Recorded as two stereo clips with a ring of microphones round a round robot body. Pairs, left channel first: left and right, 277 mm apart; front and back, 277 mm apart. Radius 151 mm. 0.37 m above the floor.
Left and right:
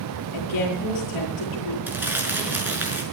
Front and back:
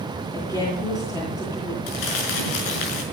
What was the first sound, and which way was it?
A woman speaking, 80° left.